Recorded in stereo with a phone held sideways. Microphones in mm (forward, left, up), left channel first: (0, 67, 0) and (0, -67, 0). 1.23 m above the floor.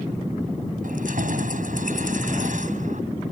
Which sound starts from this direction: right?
Keys jangling, at 0.8 s.